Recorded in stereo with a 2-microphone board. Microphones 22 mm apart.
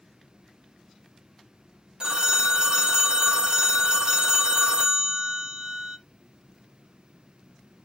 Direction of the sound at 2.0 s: 40° right (ahead or behind).